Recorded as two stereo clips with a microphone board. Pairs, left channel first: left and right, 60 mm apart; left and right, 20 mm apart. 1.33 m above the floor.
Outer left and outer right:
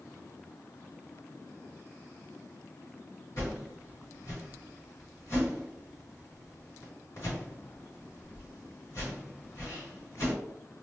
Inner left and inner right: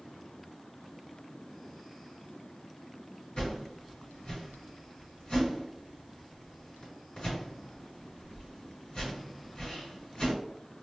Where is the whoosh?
55° left (ahead or behind), 1.9 m.